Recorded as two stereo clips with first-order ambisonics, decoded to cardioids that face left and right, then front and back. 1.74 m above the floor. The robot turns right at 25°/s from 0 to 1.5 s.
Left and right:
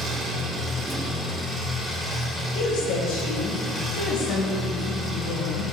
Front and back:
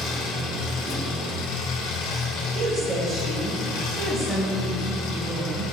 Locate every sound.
0.0 s an engine running: 30° right, 4 m; by 5.7 s 5° left, 4 m
2.5 s a woman speaking: 110° left, 3.5 m